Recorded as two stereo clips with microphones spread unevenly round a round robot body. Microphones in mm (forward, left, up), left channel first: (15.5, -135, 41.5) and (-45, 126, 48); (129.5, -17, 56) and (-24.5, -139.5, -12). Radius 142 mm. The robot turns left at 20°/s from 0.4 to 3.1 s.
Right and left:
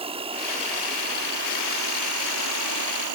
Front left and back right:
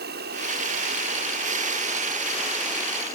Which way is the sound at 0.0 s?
175° left.